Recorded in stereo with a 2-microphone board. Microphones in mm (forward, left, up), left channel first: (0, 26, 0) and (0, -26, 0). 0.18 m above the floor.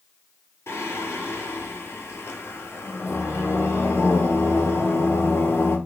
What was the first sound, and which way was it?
Singing, 55° left (ahead or behind).